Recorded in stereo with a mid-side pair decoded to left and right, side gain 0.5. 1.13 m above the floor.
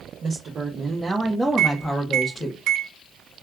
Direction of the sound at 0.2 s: 50° right.